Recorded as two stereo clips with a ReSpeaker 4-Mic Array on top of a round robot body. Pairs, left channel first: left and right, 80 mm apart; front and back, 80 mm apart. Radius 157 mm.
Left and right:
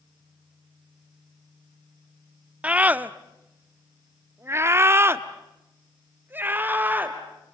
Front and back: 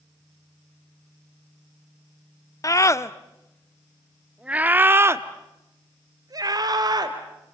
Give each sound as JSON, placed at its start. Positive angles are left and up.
{"t": 2.6, "sound": "a scream", "azimuth_deg": -20, "distance_m": 1.4}